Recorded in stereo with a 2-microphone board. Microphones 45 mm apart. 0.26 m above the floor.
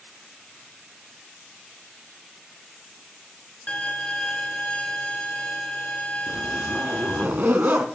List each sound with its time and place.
3.7 s a violin: 30° left (ahead or behind), 0.7 m
6.3 s a zipper: 45° right (ahead or behind), 0.5 m